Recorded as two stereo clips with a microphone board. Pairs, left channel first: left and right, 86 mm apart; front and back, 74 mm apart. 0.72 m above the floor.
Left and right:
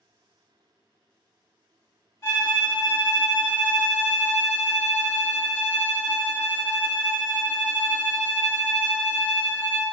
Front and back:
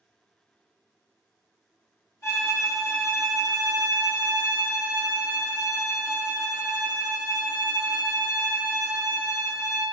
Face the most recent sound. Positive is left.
turn(degrees=45)